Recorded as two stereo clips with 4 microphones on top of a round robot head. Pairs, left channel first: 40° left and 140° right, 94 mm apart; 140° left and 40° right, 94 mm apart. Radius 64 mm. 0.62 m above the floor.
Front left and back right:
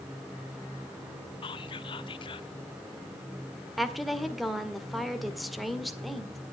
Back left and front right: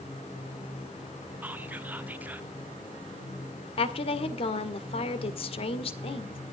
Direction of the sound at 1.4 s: 30° left.